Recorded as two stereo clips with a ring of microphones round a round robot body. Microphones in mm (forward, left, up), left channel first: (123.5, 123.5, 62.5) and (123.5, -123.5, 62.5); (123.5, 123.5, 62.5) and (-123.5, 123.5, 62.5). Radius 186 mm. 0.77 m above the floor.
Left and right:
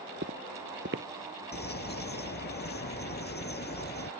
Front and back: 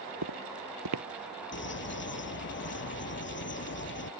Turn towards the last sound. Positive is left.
turn(degrees=40)